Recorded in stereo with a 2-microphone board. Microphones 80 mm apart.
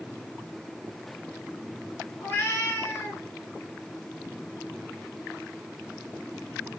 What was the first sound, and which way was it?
A cat meowing, 25° left (ahead or behind).